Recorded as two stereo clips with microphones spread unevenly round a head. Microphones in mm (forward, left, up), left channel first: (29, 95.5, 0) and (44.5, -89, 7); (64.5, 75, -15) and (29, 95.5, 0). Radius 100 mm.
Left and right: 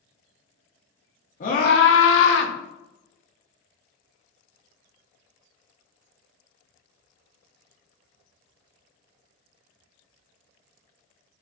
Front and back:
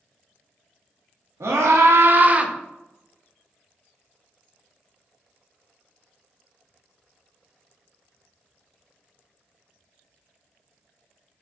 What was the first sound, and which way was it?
A scream, 150° left.